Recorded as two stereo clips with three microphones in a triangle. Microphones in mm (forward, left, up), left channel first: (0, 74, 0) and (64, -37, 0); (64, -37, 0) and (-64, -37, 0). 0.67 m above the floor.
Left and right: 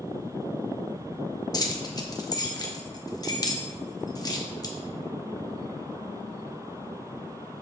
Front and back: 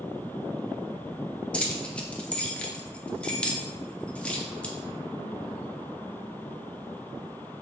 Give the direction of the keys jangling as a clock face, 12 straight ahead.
10 o'clock.